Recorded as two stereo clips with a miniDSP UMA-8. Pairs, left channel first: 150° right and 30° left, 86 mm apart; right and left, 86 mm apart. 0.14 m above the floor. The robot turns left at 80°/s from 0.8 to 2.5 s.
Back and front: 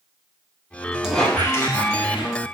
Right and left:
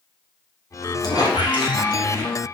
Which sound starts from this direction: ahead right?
A squeak, at 1.0 s.